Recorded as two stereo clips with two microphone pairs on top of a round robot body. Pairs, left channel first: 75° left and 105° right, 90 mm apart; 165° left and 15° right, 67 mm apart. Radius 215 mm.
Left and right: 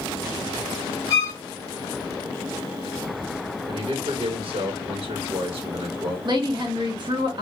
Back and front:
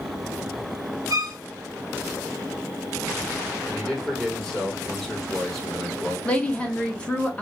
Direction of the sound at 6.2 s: 125° right.